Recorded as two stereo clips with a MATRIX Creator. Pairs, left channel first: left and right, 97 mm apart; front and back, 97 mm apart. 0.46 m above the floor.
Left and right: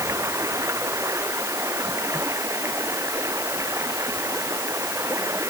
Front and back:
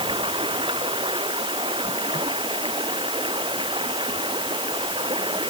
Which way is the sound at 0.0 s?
150° right.